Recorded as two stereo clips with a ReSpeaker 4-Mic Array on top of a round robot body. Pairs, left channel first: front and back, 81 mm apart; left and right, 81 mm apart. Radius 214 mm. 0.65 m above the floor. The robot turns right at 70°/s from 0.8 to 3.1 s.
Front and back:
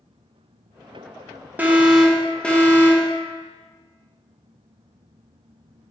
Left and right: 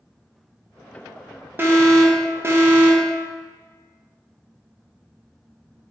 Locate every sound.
1.6 s an alarm: 125° right, 0.9 m; by 3.1 s 20° right, 0.9 m